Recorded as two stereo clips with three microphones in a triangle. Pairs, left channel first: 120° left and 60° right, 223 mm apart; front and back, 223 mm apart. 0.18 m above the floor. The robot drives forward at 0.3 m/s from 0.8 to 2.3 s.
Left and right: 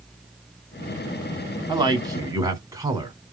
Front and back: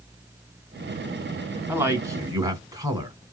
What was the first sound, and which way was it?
A man speaking, 110° right.